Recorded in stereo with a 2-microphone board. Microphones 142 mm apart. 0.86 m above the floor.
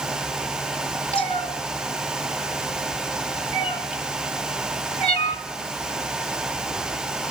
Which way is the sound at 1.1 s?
40° left (ahead or behind).